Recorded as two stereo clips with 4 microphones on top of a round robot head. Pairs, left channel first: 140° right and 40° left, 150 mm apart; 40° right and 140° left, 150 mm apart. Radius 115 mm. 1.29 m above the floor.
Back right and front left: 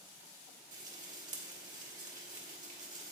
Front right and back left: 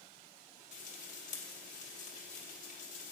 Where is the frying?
Straight ahead, 1.4 m.